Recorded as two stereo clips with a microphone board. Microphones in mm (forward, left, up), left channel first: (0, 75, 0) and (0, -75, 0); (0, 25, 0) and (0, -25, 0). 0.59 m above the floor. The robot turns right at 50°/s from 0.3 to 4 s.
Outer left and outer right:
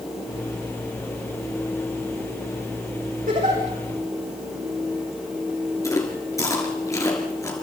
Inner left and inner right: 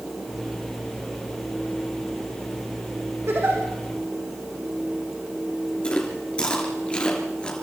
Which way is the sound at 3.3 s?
65° right (ahead or behind).